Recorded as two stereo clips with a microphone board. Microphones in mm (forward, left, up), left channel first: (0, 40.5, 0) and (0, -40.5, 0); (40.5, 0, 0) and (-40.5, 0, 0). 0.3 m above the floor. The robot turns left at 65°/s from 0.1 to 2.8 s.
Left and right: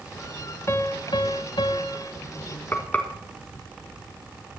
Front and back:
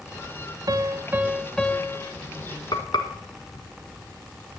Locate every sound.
0.7 s a piano: 145° left, 0.7 m; by 2.1 s 50° left, 0.7 m
2.7 s frying: 25° left, 1.8 m; by 3.1 s 20° left, 1.8 m